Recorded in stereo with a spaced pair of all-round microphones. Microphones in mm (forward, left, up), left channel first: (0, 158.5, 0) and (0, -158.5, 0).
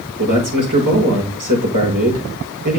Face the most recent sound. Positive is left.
turn(degrees=-65)  # may be behind; listen again after turning